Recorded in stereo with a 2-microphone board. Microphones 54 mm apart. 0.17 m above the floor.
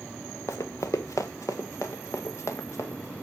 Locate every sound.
0.5 s running footsteps: 65° left (ahead or behind), 0.9 m; by 3.1 s 60° left (ahead or behind), 2.5 m